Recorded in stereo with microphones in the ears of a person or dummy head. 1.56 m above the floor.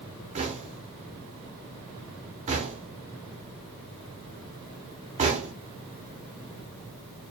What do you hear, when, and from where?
0.3 s knocking: 35° right (ahead or behind), 0.9 m